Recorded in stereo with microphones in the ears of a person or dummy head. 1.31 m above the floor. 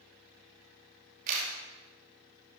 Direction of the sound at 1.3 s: 50° right (ahead or behind).